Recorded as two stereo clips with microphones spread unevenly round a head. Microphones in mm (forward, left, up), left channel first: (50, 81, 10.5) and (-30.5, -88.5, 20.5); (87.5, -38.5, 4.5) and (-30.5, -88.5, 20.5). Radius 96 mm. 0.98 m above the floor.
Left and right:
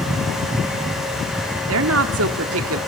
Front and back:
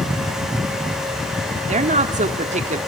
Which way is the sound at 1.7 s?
130° right.